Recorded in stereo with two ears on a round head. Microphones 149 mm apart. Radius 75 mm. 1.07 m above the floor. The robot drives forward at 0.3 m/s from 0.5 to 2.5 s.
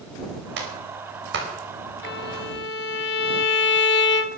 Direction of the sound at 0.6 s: 80° right.